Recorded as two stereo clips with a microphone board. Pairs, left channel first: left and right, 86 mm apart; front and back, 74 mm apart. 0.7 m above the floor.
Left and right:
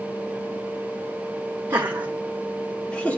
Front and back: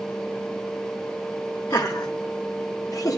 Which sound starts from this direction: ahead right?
Laughter, at 1.7 s.